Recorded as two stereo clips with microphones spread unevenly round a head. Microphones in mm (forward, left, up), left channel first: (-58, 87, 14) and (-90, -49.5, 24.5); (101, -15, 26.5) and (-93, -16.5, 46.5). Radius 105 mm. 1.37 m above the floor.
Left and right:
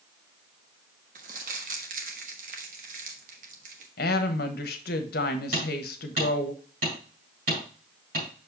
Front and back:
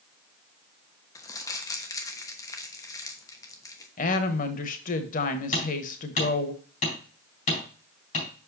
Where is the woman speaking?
55° left, 0.9 m.